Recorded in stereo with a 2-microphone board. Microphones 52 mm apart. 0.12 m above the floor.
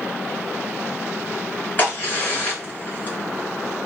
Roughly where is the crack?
Left.